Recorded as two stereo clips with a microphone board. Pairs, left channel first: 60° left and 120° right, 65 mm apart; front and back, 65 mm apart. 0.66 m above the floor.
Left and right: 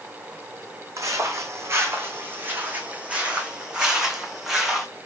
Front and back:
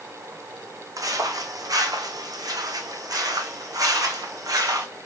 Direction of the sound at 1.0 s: 155° right.